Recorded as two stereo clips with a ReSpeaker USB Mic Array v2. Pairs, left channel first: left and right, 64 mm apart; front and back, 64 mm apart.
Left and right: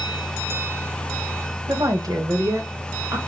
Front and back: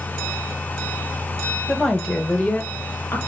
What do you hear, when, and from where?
1.7 s a woman speaking: 90° right, 1.4 m; by 3.2 s 50° right, 1.9 m